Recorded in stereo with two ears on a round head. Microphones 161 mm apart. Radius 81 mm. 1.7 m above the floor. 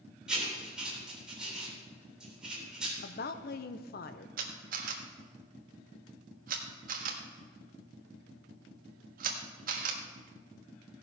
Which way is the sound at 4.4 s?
50° right (ahead or behind).